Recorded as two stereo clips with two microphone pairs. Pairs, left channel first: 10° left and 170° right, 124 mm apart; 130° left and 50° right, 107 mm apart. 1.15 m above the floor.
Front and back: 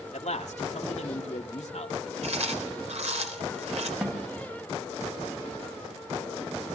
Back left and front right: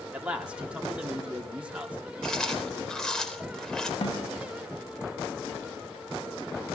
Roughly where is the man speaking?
Ahead left.